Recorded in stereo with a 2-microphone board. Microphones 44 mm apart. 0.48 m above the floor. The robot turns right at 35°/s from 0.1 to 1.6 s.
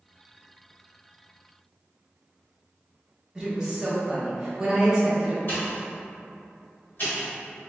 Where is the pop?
50° left (ahead or behind), 1.7 m.